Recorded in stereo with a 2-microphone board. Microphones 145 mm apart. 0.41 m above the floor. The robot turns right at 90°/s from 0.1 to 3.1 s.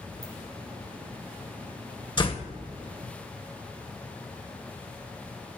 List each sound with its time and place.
0.2 s a ringtone: 85° right, 7 m
2.2 s a door slam: 40° left, 1.1 m; by 2.5 s 75° left, 1.1 m